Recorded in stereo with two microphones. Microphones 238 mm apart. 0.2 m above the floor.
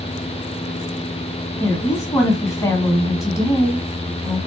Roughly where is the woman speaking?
Centre.